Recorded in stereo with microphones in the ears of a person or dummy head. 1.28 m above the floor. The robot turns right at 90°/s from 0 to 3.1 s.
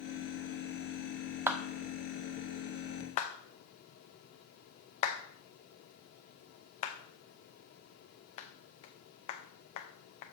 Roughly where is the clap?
Centre.